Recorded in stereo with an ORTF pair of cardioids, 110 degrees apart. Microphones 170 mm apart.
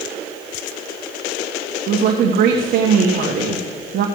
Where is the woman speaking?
60° right, 1.7 m.